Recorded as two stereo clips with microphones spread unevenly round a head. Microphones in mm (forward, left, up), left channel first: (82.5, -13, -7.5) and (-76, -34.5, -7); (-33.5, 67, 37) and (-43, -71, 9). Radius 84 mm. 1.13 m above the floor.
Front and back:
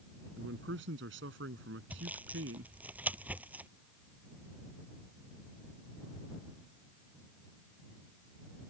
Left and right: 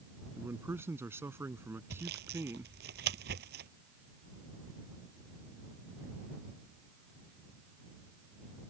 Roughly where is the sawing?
Right.